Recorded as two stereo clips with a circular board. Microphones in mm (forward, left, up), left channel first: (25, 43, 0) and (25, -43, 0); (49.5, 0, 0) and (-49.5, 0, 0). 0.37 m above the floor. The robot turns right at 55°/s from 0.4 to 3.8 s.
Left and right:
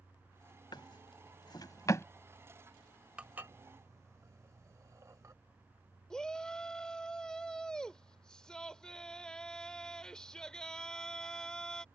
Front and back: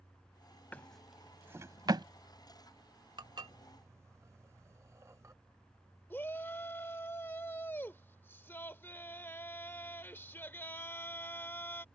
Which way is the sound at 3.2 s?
165° right.